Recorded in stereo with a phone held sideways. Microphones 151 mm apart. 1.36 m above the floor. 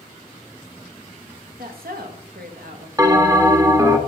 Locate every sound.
1.6 s a woman speaking: 80° right, 1.3 m
3.0 s a bell: 20° right (ahead or behind), 1.0 m